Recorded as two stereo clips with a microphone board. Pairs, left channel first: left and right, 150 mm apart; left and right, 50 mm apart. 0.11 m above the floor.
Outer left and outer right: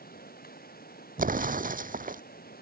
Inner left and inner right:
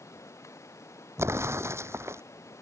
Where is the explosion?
70° right (ahead or behind).